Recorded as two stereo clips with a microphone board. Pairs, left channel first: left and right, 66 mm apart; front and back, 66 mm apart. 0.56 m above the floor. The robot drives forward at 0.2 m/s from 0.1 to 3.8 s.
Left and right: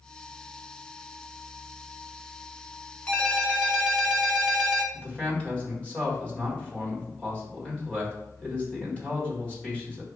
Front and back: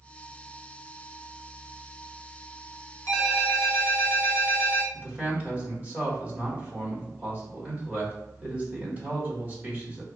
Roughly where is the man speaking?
Behind left.